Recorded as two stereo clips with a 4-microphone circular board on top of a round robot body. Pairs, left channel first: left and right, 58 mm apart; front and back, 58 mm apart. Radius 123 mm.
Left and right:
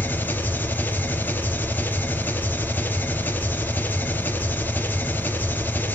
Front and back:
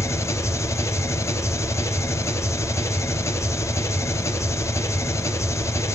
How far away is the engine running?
About 3 m.